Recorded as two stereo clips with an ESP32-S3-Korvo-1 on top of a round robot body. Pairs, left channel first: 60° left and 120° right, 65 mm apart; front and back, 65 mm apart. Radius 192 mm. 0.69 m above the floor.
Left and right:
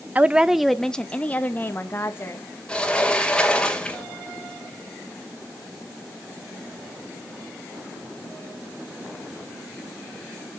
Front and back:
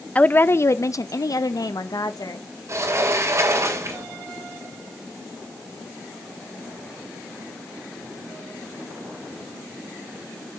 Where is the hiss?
I don't hear a hiss.